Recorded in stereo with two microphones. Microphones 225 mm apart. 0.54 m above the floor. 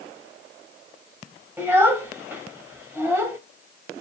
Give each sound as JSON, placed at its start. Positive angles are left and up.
{"t": 1.6, "sound": "a child speaking", "side_deg": -10, "distance_m": 2.0}